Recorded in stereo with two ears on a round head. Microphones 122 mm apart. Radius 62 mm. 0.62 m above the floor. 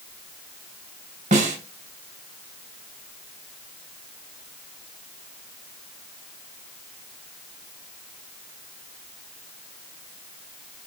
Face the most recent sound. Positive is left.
turn(degrees=-55)  # may be behind; listen again after turning